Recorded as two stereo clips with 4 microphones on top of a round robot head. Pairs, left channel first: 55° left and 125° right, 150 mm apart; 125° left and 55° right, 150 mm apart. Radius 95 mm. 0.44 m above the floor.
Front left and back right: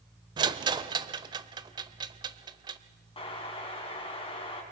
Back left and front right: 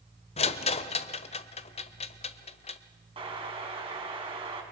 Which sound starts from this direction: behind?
A rattle, at 0.4 s.